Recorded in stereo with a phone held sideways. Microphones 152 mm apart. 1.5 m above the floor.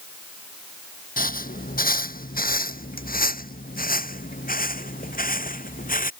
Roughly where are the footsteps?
Left.